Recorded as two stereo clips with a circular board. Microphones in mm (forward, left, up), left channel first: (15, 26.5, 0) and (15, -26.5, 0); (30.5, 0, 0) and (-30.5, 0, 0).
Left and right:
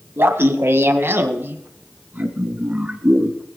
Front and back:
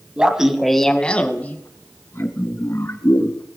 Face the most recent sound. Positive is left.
turn(degrees=-25)